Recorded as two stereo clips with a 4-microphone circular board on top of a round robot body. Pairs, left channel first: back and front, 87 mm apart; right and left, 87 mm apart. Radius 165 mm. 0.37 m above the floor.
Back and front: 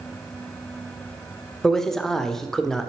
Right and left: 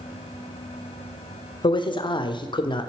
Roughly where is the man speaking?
Right.